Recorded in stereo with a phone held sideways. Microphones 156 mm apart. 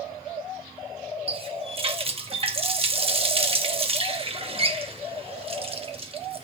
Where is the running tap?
40° right (ahead or behind), 0.9 m.